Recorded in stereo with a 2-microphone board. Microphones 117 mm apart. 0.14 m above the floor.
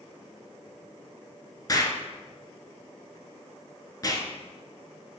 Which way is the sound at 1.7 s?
35° left (ahead or behind).